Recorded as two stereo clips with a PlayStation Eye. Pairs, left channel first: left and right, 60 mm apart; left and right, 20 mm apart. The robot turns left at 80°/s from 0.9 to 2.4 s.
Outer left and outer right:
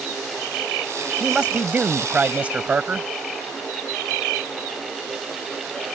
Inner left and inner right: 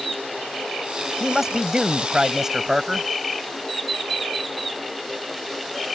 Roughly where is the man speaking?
Centre.